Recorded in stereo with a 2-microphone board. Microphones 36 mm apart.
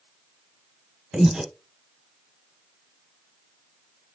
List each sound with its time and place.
1.1 s breathing: 10° right (ahead or behind), 0.9 m